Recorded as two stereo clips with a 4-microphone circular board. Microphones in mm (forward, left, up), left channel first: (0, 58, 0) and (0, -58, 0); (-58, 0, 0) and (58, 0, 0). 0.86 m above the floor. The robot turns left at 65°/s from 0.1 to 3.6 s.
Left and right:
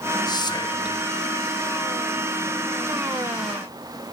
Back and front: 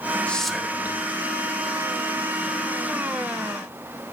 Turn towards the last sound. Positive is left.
turn(degrees=-110)